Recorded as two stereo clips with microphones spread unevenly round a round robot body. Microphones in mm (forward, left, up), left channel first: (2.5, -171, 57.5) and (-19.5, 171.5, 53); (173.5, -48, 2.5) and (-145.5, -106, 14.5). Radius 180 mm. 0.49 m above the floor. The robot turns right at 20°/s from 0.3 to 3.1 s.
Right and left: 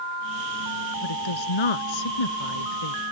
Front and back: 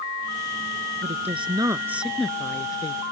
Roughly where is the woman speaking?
Right.